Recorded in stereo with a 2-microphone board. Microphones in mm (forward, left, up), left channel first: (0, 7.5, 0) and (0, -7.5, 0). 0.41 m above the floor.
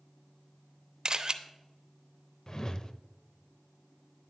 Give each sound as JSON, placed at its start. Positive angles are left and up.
{"t": 1.1, "sound": "a camera shutter", "side_deg": -40, "distance_m": 0.7}
{"t": 2.5, "sound": "a whoosh", "side_deg": 40, "distance_m": 0.5}